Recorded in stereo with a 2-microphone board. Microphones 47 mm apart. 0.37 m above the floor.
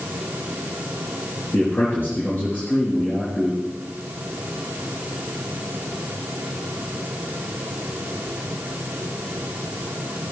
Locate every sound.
1.5 s a man speaking: 45° left (ahead or behind), 5 m